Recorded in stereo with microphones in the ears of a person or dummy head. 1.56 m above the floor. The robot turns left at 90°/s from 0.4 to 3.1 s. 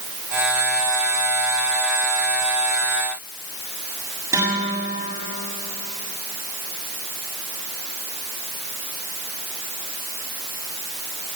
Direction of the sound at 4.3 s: 20° right (ahead or behind).